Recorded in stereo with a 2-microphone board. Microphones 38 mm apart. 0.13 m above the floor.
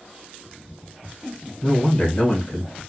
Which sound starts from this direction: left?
A man speaking, at 1.6 s.